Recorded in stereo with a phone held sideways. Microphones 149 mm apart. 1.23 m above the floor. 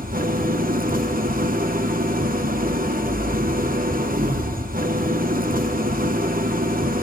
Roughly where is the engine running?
Right.